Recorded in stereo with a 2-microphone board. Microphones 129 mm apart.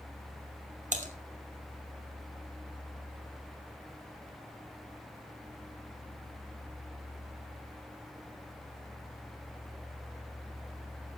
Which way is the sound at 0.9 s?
85° right.